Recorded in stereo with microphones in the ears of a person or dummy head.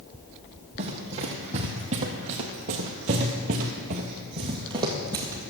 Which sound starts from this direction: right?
Running footsteps, at 0.8 s.